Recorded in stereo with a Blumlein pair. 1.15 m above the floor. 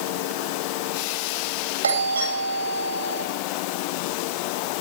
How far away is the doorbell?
About 7.5 m.